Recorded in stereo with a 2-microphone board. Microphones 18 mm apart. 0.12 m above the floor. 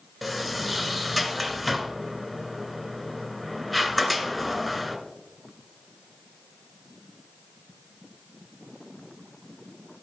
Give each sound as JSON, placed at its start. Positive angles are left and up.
{"t": 0.2, "sound": "a sliding door", "side_deg": -5, "distance_m": 1.0}